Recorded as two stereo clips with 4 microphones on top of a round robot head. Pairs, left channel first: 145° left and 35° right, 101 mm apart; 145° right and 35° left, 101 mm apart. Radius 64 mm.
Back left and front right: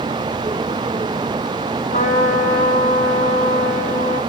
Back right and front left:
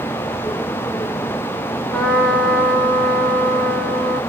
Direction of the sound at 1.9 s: 135° left.